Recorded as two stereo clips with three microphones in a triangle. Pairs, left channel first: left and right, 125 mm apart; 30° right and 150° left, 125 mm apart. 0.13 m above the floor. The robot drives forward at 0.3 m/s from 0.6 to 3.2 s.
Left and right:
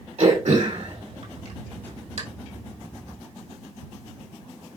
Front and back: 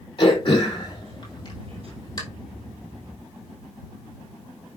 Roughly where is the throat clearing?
Right.